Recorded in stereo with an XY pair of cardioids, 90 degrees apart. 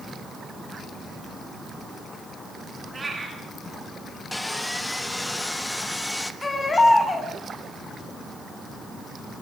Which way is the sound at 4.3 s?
10° left.